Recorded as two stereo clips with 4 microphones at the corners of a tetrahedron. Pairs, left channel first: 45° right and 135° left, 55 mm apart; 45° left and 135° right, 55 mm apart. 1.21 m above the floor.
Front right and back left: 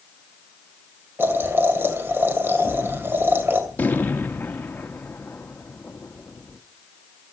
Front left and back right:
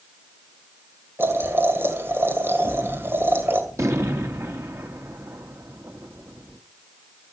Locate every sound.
1.2 s boiling: straight behind, 2.5 m
2.6 s a gunshot: 105° right, 1.8 m